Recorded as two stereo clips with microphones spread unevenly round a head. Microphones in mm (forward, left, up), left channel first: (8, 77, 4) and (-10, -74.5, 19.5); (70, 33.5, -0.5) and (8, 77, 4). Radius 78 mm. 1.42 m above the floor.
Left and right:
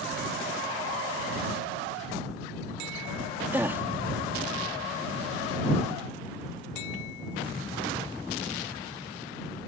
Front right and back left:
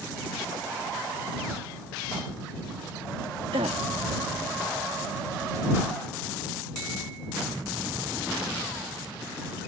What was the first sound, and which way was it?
A gasp, 175° right.